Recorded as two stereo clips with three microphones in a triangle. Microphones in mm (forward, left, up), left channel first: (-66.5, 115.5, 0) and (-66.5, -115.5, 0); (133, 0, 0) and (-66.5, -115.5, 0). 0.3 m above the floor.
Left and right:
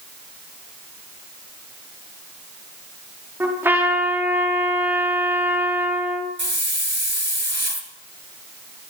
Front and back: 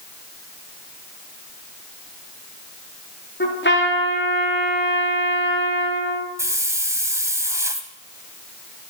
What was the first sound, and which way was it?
A trumpet, 10° right.